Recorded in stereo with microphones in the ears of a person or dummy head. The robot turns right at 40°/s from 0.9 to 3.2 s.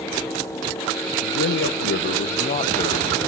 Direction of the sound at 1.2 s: 90° left.